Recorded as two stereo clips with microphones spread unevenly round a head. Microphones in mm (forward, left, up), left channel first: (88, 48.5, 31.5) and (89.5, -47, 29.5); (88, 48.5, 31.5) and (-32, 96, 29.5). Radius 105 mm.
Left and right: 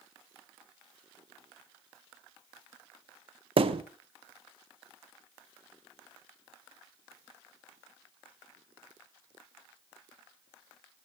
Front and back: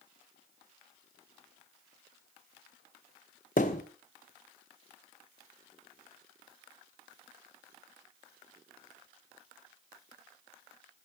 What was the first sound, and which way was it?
A thud, 75° right.